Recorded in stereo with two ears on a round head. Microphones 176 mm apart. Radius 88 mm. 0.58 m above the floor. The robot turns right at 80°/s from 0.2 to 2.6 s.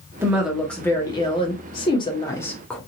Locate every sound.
0.2 s a woman speaking: 10° right (ahead or behind), 0.9 m; by 2.8 s 5° left (ahead or behind), 0.9 m